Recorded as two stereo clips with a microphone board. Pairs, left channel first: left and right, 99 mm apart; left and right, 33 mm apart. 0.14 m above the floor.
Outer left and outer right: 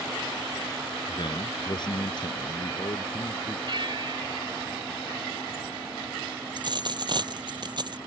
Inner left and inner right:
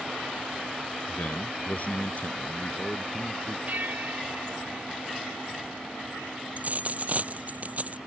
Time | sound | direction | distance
1.1 | a man speaking | 50° left (ahead or behind) | ?
3.7 | a bell | 50° right (ahead or behind) | ?
6.6 | a dropped coin | 50° right (ahead or behind) | ?